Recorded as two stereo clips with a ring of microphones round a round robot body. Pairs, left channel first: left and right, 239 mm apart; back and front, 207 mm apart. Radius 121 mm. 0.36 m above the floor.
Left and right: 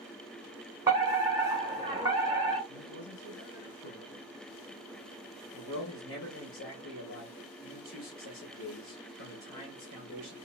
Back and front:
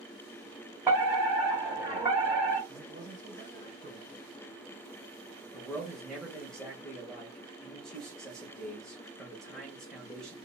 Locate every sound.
0.9 s a fire alarm: 45° right, 2 m
2.7 s a man speaking: 50° left, 2 m
5.5 s a man speaking: 95° left, 1.7 m